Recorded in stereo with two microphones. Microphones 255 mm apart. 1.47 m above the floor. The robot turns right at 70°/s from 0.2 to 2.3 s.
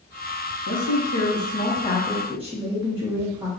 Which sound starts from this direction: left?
A woman speaking, at 0.7 s.